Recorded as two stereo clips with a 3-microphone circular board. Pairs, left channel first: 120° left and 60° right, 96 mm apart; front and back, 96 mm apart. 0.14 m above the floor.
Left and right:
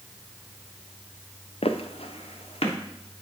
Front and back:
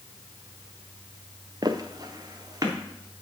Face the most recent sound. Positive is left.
turn(degrees=125)